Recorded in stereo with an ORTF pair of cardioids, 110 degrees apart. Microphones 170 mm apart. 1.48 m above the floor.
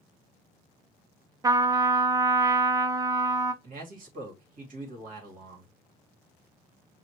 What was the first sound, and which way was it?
A trumpet, 20° right.